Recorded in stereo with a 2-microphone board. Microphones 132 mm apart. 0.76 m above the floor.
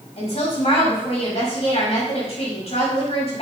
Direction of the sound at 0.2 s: 50° left (ahead or behind).